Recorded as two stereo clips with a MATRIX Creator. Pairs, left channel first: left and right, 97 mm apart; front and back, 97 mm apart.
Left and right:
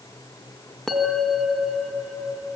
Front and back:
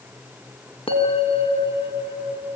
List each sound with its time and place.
0.9 s a bell: 5° left, 3.5 m